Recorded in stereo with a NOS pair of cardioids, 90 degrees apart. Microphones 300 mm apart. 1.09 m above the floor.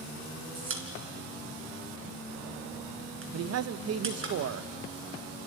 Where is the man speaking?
50° right, 0.7 m.